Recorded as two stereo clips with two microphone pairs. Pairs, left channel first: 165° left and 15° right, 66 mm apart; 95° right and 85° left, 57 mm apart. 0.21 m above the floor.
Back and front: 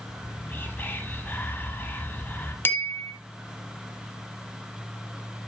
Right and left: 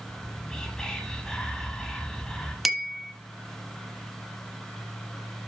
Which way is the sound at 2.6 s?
165° left.